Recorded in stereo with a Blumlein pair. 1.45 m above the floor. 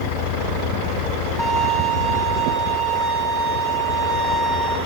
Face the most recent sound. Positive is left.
turn(degrees=-10)